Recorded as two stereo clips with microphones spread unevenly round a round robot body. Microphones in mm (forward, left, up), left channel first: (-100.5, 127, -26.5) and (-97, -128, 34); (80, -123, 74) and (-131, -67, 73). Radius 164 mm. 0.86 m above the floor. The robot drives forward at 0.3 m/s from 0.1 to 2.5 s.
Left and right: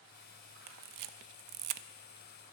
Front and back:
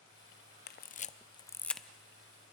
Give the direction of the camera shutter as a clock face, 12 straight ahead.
2 o'clock.